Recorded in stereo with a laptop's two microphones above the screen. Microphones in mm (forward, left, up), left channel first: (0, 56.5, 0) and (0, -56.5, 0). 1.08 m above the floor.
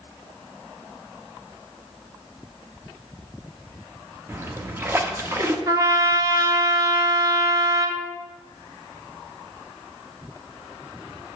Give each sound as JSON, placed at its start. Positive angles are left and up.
{"t": 4.3, "sound": "a splash", "side_deg": -20, "distance_m": 0.5}
{"t": 5.7, "sound": "a trumpet", "side_deg": -30, "distance_m": 0.6}